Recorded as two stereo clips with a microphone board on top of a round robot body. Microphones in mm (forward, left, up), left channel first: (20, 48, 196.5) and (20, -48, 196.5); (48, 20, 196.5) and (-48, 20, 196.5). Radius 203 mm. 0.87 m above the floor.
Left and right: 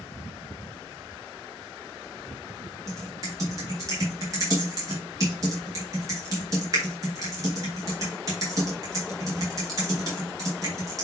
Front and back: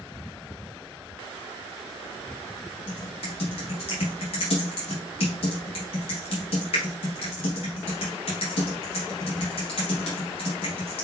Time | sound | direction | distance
2.9 | typing on a keyboard | 35° right | 0.5 m